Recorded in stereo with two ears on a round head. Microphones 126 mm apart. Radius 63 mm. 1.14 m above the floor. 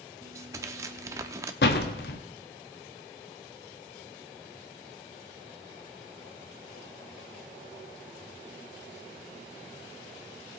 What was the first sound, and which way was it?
Tearing paper, 20° right (ahead or behind).